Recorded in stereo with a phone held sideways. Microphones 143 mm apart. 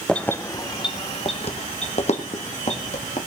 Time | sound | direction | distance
0.1 | keys jangling | 5° left (ahead or behind) | 0.6 m